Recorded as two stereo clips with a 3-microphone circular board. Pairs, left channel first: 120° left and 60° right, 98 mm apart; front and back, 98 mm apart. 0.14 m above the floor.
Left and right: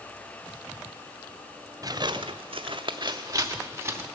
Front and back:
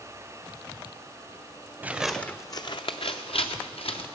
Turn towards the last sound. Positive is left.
turn(degrees=5)